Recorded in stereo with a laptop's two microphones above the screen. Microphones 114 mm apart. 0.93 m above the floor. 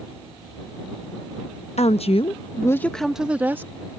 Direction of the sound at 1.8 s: 65° left (ahead or behind).